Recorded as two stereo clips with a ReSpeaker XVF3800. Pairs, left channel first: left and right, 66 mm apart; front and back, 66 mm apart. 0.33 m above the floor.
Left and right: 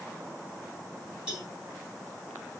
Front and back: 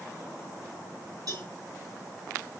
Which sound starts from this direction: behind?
A cowbell, at 1.3 s.